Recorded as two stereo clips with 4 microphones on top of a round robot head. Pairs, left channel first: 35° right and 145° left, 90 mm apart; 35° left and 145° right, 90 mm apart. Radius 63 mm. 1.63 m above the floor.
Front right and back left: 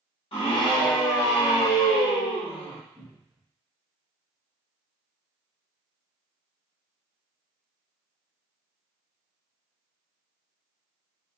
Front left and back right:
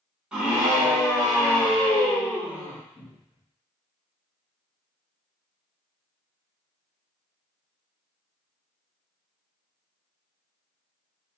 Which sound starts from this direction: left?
A cupboard door, at 3.0 s.